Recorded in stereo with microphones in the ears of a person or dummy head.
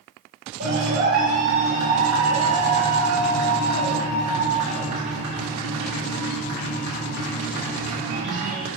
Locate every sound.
0.6 s a clap: 60° right (ahead or behind), 4 m